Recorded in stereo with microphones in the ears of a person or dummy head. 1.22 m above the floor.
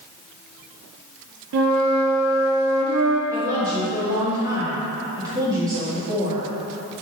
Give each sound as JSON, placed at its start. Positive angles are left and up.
{"t": 1.5, "sound": "a flute", "side_deg": -65, "distance_m": 0.7}
{"t": 3.3, "sound": "a woman speaking", "side_deg": -20, "distance_m": 2.0}